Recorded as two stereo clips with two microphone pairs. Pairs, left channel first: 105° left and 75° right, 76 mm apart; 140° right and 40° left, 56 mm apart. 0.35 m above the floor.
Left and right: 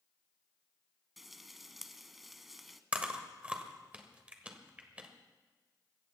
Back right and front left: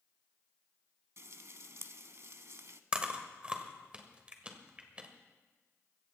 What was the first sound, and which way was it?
Frying, 10° left.